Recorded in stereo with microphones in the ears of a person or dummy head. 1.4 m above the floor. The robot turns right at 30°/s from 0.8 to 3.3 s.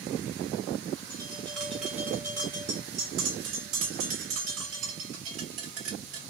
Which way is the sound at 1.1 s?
20° left (ahead or behind).